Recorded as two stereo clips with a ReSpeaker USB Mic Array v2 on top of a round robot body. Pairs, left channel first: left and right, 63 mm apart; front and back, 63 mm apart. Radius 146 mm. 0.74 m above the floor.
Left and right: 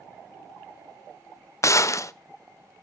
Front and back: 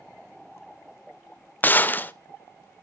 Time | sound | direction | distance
1.6 | a gunshot | 55° left | 0.6 m